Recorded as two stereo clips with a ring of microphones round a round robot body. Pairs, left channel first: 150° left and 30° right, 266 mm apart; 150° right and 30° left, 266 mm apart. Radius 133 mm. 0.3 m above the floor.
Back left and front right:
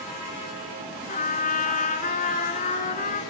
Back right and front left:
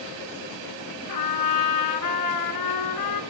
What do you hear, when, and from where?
1.1 s a trumpet: 150° right, 1.8 m